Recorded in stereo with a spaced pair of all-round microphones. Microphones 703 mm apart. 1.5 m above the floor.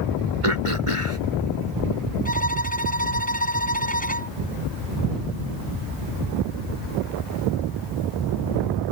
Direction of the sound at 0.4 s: 45° right (ahead or behind).